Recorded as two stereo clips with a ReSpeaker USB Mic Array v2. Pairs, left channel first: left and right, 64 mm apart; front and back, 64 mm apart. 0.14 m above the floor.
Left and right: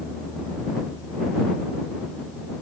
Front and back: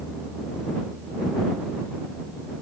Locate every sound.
Only background noise.